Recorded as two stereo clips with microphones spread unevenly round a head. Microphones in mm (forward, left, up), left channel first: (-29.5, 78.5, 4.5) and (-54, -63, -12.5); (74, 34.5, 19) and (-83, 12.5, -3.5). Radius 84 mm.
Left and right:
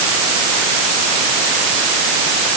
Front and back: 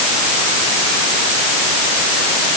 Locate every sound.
Only background noise.